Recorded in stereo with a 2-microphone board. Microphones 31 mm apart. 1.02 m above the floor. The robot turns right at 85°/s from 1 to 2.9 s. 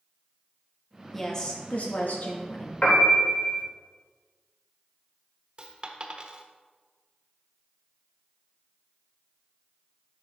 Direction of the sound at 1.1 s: 5° left.